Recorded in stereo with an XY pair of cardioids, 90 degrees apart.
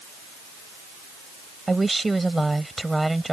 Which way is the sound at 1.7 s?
20° right.